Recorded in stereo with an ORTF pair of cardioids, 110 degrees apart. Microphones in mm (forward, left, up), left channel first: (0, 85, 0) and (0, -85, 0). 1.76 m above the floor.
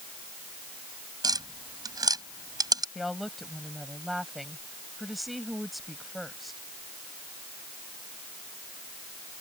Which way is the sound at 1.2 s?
20° right.